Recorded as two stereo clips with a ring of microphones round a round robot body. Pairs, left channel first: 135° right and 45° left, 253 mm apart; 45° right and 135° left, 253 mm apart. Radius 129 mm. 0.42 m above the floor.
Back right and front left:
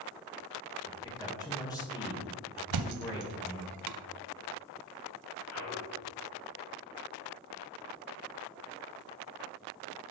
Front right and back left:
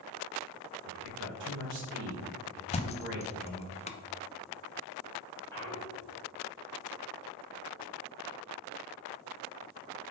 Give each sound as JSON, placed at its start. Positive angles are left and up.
{"t": 0.8, "sound": "a man speaking", "azimuth_deg": 155, "distance_m": 1.8}
{"t": 2.7, "sound": "a thud", "azimuth_deg": 25, "distance_m": 0.6}
{"t": 5.5, "sound": "a clunk", "azimuth_deg": -125, "distance_m": 3.5}